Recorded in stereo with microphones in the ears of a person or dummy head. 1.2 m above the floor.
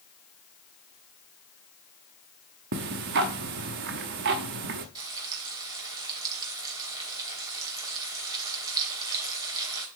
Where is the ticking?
55° right (ahead or behind), 0.9 m.